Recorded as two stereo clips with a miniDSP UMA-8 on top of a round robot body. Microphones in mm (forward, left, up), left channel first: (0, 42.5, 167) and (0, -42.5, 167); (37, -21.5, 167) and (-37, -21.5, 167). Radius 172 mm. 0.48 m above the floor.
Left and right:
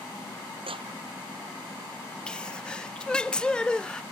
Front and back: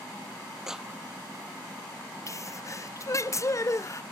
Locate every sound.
0.7 s a clap: 95° right
2.3 s a sneeze: 15° left